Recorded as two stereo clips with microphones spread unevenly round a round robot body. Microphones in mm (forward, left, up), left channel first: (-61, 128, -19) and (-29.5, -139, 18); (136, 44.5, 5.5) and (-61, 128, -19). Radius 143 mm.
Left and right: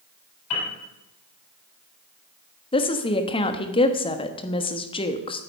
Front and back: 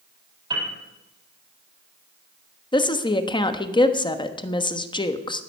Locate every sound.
0.5 s a piano: 85° left, 7 m
2.7 s a woman speaking: 45° left, 1.1 m